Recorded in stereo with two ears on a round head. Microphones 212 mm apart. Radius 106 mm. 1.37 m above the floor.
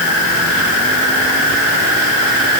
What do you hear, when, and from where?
Only background noise.